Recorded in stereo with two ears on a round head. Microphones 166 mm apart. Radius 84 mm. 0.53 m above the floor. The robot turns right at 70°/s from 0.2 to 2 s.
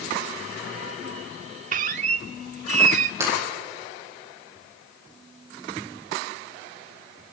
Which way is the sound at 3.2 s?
15° right (ahead or behind).